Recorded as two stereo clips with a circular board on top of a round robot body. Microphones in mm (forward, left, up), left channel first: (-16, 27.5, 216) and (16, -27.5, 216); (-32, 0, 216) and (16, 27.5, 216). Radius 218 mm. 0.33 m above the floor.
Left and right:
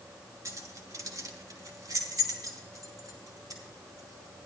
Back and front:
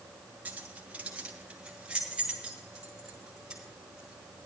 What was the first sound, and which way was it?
Keys jangling, 30° right.